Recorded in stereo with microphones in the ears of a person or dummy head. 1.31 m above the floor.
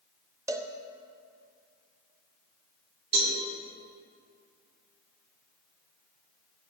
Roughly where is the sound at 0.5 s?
Centre.